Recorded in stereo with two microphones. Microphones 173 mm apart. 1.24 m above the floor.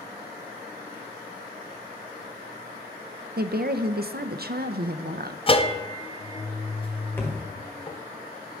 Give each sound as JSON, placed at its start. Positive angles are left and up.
{"t": 3.4, "sound": "a woman speaking", "side_deg": -65, "distance_m": 0.6}
{"t": 5.5, "sound": "a bell", "side_deg": 30, "distance_m": 0.6}
{"t": 7.2, "sound": "a thud", "side_deg": 15, "distance_m": 1.4}